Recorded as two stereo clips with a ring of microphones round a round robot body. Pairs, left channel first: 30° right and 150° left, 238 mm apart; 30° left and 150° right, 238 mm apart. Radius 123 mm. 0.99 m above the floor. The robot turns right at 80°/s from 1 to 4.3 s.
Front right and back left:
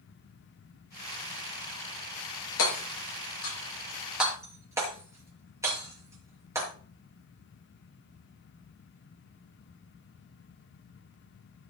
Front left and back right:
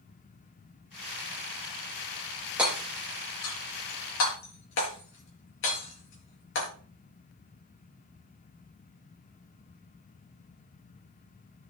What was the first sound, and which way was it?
Hammering, 65° right.